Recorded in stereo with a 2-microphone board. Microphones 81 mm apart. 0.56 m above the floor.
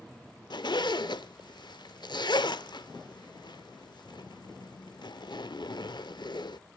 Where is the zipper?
65° left (ahead or behind), 0.8 m.